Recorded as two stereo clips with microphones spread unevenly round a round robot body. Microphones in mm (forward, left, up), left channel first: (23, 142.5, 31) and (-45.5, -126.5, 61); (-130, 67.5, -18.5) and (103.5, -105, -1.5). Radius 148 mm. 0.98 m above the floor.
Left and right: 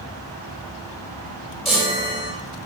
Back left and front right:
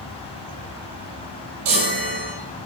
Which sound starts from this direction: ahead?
A chime, at 1.6 s.